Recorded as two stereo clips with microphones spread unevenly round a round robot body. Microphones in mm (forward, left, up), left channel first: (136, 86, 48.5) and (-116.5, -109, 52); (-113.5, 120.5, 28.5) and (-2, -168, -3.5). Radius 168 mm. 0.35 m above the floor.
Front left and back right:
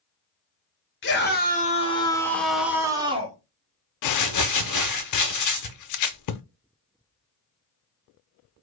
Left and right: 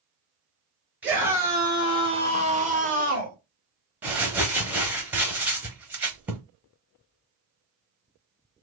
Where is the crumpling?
10° left, 0.6 m.